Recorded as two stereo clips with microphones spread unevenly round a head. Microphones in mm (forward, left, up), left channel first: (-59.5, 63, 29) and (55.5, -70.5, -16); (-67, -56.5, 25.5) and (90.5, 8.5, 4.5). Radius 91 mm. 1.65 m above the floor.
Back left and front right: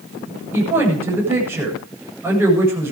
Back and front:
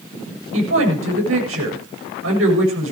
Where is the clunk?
I don't hear a clunk.